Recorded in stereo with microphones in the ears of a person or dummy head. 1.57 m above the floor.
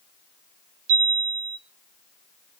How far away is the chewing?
I don't hear chewing.